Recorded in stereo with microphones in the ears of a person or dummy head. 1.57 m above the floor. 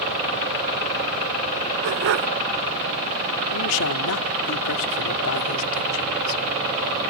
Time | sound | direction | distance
1.8 | a dog barking | 60° right (ahead or behind) | ?
3.5 | a man speaking | 80° left | ?